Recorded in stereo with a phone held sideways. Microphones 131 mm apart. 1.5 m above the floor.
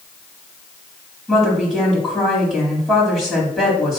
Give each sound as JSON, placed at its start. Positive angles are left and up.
{"t": 1.3, "sound": "a woman speaking", "side_deg": -5, "distance_m": 4.0}